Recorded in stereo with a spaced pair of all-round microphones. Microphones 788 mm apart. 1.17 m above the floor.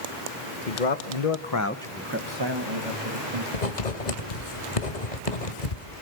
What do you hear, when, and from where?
0.7 s a man speaking: 70° left (ahead or behind), 1.6 m; by 3.4 s 50° right (ahead or behind), 2.5 m
3.5 s writing: 60° left (ahead or behind), 1.8 m